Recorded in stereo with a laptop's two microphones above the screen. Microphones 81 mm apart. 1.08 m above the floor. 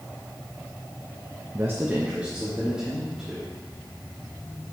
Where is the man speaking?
35° right (ahead or behind), 0.6 m; by 3.5 s 10° right (ahead or behind), 2.5 m.